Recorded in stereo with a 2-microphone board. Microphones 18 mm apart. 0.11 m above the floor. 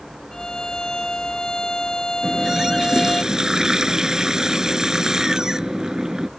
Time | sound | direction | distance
0.3 | a violin | 40° left (ahead or behind) | ?
2.2 | a running tap | 40° right (ahead or behind) | ?